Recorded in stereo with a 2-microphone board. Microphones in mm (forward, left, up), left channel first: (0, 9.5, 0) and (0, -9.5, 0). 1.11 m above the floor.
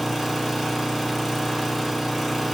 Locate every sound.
0.0 s an engine running: centre (ahead or behind), 1.1 m